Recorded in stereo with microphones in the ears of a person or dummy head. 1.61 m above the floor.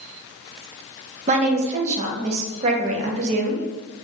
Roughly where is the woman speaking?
Right.